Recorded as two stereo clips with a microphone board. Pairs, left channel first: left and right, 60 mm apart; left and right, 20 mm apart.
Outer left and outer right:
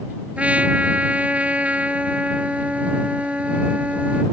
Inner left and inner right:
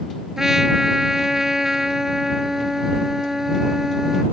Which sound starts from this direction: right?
A trumpet, at 0.4 s.